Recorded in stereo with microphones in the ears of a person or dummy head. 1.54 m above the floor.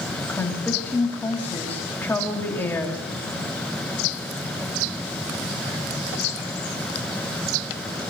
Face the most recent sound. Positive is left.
turn(degrees=15)  # may be behind; listen again after turning